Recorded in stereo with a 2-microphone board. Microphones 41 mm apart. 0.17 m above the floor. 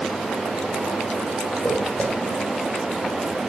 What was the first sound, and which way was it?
Footsteps, 25° left (ahead or behind).